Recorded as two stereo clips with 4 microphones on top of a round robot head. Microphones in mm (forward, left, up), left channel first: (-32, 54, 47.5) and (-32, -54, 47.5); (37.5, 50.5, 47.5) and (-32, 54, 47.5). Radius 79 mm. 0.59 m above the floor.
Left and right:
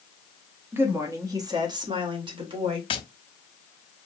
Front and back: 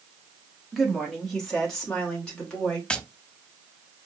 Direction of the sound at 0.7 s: 90° right.